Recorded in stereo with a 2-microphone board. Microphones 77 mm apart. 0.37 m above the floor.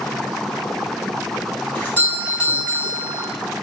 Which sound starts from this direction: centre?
A doorbell, at 1.8 s.